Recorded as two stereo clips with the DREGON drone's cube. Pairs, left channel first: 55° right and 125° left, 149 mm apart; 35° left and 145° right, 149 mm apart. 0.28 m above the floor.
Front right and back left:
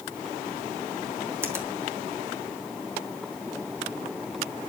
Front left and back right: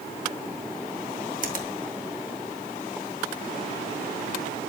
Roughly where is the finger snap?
Behind.